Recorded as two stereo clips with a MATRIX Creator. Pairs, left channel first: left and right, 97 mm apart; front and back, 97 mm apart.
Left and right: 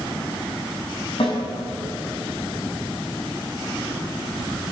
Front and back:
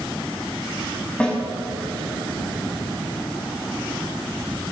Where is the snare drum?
75° left, 5.5 m.